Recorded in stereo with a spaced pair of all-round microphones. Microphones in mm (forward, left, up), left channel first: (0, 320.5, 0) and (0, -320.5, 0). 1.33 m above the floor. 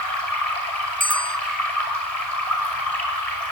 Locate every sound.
0.0 s running water: 65° left (ahead or behind), 6 m
1.0 s a bell: 10° left (ahead or behind), 0.6 m